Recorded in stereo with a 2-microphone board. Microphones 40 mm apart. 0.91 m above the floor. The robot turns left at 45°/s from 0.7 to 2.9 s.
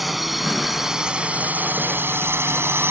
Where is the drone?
Centre (ahead or behind); by 2.9 s 75° right (ahead or behind).